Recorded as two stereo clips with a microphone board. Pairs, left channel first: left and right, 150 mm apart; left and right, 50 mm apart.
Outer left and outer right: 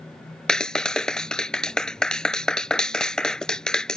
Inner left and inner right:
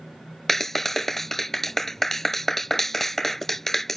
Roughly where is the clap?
Centre.